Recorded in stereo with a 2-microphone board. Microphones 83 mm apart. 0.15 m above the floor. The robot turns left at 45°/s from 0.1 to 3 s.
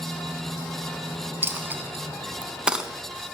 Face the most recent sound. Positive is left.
turn(degrees=-5)  # may be behind; listen again after turning